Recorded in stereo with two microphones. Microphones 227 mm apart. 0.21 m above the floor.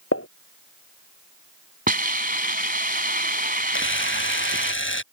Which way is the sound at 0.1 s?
80° left.